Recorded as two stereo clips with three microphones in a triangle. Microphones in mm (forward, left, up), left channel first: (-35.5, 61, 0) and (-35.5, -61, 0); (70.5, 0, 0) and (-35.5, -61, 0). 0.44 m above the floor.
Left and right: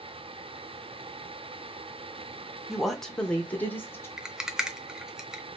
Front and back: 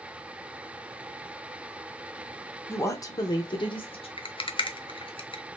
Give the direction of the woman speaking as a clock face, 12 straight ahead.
12 o'clock.